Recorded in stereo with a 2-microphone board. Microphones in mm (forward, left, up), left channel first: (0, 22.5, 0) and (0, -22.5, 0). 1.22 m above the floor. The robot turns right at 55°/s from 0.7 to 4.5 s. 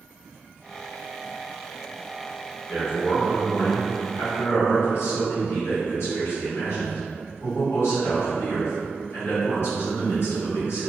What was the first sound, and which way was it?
A man speaking, 15° left.